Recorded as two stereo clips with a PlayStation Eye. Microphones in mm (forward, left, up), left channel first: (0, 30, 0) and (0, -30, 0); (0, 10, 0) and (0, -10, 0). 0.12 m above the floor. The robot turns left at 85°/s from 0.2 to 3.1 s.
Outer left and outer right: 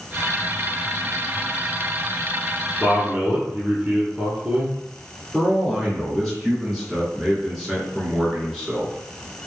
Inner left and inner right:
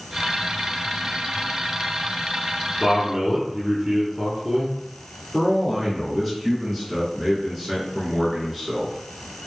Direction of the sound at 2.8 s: 20° right (ahead or behind).